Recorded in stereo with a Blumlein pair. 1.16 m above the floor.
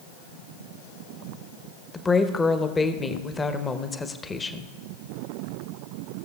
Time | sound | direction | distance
1.9 | a woman speaking | 15° left | 0.9 m